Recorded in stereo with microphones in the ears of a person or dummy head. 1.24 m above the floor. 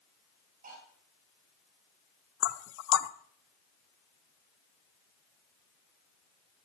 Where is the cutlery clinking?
45° right (ahead or behind), 5 m.